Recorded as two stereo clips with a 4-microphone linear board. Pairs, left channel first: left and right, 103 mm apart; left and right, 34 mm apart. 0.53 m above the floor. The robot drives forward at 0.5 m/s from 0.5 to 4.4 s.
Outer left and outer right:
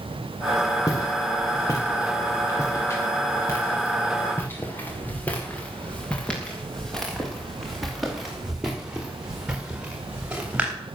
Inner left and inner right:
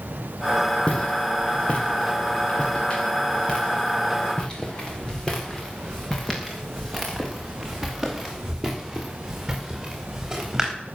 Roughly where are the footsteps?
Left.